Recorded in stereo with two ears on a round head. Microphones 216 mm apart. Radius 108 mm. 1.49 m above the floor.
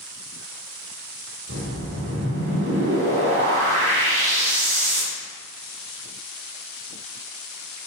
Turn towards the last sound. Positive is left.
turn(degrees=-55)  # may be behind; listen again after turning